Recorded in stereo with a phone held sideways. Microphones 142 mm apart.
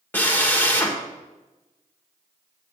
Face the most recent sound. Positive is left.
turn(degrees=15)  # may be behind; listen again after turning